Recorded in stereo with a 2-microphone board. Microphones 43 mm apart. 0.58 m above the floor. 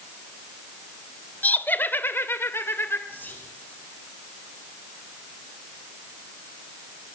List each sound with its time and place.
1.4 s laughter: 40° left (ahead or behind), 1.9 m; by 3.0 s 65° left (ahead or behind), 2 m
3.1 s whispering: 50° left (ahead or behind), 4.5 m